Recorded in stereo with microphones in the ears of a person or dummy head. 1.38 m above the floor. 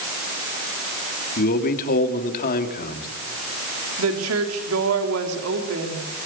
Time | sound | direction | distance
1.4 | a man speaking | 50° left (ahead or behind) | 3 m
4.0 | a woman speaking | 75° right (ahead or behind) | 3.5 m